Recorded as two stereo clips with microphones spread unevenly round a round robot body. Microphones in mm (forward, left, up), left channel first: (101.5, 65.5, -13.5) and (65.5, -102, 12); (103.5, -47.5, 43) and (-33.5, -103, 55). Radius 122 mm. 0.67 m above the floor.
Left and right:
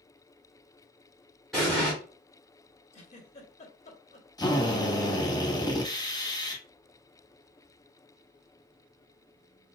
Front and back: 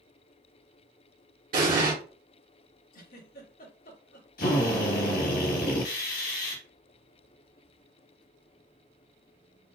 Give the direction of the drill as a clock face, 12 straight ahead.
12 o'clock.